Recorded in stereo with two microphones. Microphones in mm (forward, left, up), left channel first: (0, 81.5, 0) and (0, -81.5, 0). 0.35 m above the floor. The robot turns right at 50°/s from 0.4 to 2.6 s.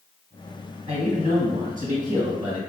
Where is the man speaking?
120° right, 1.9 m; by 2.6 s 35° right, 1.9 m.